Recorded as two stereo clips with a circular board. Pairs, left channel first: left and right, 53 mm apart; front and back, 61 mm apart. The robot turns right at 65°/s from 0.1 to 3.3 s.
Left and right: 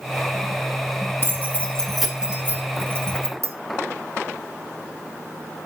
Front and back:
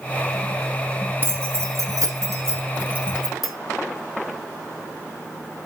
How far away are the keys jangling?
About 1.9 m.